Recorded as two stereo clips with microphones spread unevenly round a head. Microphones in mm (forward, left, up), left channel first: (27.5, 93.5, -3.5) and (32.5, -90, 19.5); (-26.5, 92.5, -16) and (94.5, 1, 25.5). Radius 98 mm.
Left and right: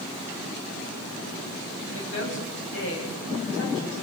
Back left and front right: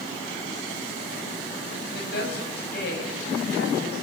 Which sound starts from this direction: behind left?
A woman speaking, at 1.9 s.